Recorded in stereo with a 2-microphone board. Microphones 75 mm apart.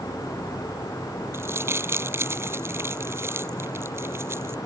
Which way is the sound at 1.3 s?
35° right (ahead or behind).